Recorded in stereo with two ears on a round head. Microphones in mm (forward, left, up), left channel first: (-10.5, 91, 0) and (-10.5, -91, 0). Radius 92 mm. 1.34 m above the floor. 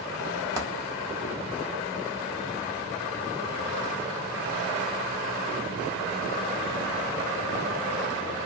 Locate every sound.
0.6 s a dropped coin: 15° right (ahead or behind), 0.8 m